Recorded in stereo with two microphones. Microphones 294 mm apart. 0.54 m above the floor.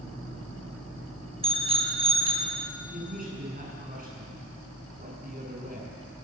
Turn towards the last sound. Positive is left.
turn(degrees=-30)  # may be behind; listen again after turning